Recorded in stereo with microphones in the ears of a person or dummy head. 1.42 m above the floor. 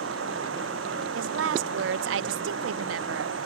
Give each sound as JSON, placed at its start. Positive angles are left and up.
{"t": 0.0, "sound": "running water", "side_deg": -85}
{"t": 1.1, "sound": "a woman speaking", "side_deg": -75}